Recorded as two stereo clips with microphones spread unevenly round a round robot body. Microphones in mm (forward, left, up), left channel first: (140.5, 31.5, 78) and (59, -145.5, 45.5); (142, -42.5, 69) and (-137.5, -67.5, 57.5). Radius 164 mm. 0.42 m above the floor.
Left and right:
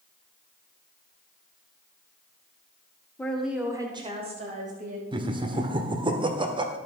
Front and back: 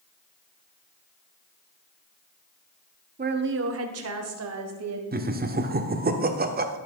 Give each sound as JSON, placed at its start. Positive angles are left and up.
{"t": 3.2, "sound": "a woman speaking", "azimuth_deg": 155, "distance_m": 1.1}
{"t": 5.1, "sound": "laughter", "azimuth_deg": -145, "distance_m": 1.3}